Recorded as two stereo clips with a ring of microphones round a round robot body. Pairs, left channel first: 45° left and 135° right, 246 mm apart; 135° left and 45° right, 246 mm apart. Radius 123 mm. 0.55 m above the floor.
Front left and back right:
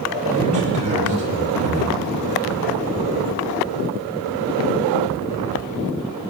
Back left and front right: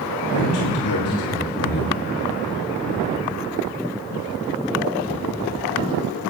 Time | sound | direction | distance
0.3 | a man speaking | 165° left | 8 m